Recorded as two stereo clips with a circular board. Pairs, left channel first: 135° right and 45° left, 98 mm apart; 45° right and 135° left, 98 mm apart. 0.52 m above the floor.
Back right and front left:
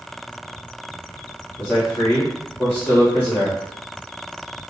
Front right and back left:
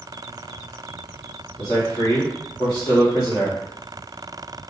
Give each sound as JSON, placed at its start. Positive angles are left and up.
{"t": 1.6, "sound": "a man speaking", "azimuth_deg": -80, "distance_m": 1.1}